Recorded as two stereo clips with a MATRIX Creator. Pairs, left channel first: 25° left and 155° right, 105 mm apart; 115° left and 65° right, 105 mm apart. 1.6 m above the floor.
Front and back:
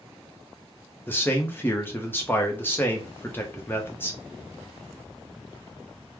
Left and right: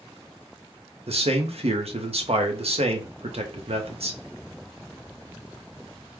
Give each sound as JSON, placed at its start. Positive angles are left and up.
{"t": 1.1, "sound": "a man speaking", "azimuth_deg": -50, "distance_m": 0.9}